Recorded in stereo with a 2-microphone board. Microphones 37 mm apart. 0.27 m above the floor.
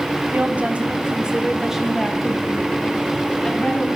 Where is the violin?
I don't hear a violin.